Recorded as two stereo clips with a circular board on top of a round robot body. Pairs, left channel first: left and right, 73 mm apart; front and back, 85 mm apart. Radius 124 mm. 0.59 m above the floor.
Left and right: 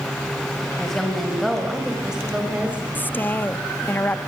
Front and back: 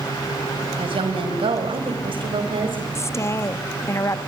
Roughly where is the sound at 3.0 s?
Ahead left.